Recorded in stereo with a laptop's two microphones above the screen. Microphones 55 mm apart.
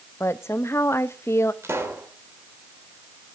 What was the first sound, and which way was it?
A woman speaking, 55° left (ahead or behind).